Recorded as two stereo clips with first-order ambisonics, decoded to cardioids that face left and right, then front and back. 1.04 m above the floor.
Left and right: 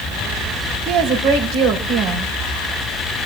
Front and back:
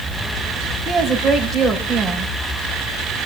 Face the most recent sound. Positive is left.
turn(degrees=-95)